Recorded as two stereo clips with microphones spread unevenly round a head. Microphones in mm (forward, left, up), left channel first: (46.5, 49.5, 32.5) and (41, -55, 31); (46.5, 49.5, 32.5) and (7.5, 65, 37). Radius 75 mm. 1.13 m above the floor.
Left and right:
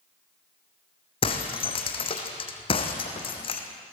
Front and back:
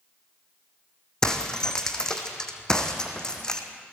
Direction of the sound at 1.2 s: 55° left.